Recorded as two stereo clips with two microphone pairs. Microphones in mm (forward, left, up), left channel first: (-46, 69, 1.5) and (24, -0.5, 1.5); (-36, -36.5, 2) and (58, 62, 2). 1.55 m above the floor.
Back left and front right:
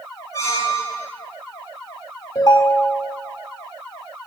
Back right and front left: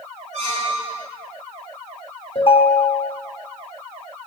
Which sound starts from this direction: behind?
A ringtone, at 2.4 s.